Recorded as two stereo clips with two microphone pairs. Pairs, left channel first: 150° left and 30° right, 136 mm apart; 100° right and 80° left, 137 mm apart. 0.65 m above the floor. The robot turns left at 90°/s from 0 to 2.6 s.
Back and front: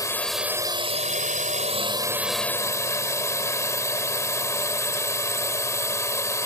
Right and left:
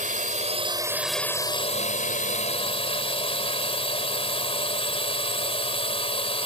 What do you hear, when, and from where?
0.0 s a drone: 90° left; by 6.5 s 140° right